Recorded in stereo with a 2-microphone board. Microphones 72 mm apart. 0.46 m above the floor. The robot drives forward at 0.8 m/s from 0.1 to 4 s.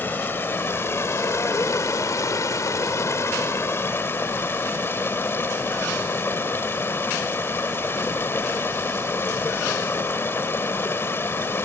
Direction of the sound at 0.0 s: 30° left (ahead or behind).